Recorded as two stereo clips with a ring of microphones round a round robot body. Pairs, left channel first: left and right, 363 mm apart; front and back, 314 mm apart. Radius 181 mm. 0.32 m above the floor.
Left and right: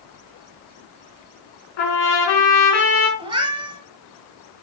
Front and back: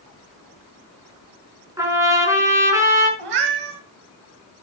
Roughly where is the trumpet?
Left.